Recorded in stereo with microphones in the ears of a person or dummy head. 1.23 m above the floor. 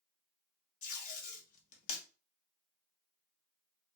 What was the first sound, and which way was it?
Tape being pulled, 50° left (ahead or behind).